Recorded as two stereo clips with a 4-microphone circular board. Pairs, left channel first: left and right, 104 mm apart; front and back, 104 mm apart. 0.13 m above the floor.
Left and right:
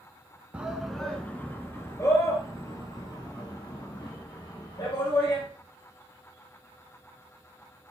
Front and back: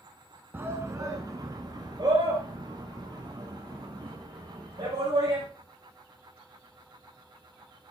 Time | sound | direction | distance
0.5 | a shout | 150° right | 1.1 m